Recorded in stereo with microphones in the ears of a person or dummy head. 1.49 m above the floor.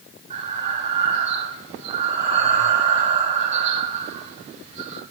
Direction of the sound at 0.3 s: 40° right (ahead or behind).